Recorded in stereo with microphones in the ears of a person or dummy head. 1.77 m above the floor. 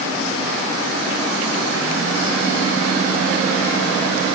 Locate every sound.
Only background noise.